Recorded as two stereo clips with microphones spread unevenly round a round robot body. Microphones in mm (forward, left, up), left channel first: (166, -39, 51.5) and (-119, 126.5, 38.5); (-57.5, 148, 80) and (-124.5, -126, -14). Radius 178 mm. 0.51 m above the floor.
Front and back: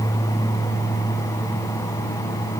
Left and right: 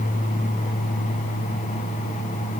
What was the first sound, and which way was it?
Only background noise.